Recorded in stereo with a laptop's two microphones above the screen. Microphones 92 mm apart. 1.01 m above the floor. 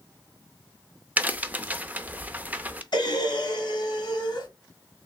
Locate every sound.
1.2 s a crack: 20° right (ahead or behind), 0.5 m
2.9 s breathing: 60° left (ahead or behind), 1.5 m